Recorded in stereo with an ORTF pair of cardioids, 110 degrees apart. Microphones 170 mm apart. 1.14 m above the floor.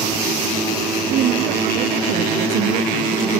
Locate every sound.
1.1 s a woman speaking: 60° right